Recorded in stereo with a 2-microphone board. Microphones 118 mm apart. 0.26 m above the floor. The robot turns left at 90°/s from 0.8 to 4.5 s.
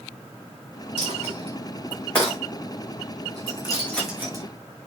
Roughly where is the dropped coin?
Right.